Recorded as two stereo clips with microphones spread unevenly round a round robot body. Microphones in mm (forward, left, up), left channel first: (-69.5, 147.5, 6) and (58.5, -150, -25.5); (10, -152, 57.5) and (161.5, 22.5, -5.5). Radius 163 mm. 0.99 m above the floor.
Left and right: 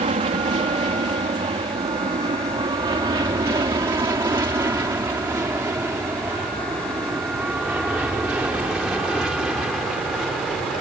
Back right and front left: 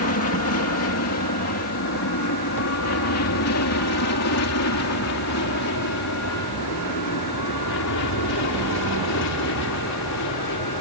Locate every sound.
0.0 s an aircraft: 135° right; by 10.8 s 155° right